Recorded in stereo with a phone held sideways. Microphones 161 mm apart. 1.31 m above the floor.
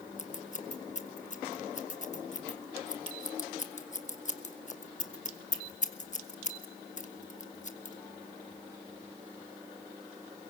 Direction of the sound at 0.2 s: 50° left (ahead or behind).